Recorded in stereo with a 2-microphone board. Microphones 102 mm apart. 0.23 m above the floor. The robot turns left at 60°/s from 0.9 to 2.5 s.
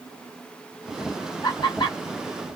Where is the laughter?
40° left (ahead or behind), 1.9 m; by 2.0 s 50° left (ahead or behind), 1.9 m.